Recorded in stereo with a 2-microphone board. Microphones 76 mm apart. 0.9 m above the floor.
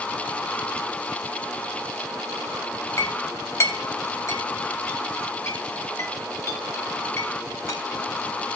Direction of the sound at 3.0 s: 45° left (ahead or behind).